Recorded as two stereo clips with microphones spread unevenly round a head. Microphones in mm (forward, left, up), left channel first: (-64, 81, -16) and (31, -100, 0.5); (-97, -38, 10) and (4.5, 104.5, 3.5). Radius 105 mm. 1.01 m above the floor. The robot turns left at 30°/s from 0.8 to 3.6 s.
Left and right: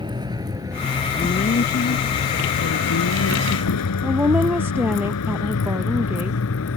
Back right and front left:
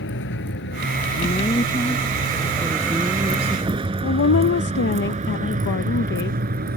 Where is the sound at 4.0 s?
145° right.